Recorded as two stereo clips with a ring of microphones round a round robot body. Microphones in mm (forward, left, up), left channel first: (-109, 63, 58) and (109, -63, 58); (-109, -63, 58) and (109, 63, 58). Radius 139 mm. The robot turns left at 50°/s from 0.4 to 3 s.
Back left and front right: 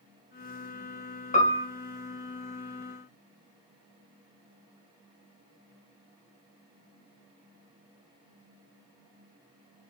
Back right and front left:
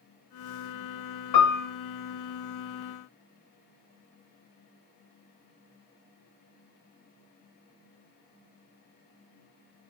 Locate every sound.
1.3 s a piano: 145° right, 1.5 m; by 1.6 s 165° right, 1.5 m